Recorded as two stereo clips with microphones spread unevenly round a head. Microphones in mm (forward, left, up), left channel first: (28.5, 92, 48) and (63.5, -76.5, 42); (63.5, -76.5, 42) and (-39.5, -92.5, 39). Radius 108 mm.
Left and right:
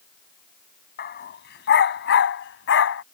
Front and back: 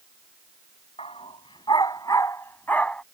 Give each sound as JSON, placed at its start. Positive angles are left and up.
{"t": 1.0, "sound": "a dog barking", "azimuth_deg": 75}